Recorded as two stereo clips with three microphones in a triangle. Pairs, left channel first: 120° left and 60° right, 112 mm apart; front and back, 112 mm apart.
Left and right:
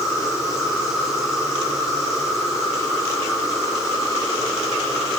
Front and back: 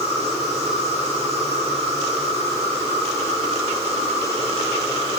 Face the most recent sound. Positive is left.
turn(degrees=-150)